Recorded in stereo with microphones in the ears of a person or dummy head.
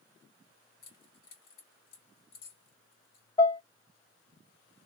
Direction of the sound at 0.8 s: 70° left (ahead or behind).